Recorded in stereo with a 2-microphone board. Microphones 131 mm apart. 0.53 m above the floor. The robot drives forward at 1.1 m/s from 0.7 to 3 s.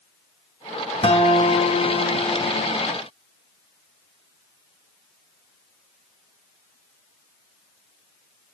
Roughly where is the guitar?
Left.